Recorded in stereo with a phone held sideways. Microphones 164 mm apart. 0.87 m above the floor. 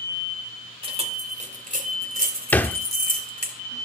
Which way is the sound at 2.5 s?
10° left (ahead or behind).